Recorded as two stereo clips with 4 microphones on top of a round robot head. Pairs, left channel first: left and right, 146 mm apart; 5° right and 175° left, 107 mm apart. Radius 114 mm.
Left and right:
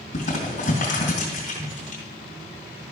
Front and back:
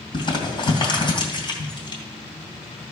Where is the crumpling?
40° left, 2.5 m.